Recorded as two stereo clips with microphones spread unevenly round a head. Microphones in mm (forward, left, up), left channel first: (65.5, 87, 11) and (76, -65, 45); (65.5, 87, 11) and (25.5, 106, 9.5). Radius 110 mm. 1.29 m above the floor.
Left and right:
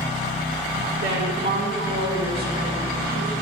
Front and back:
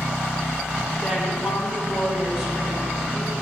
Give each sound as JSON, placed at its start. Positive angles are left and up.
{"t": 1.0, "sound": "a woman speaking", "azimuth_deg": -80, "distance_m": 2.0}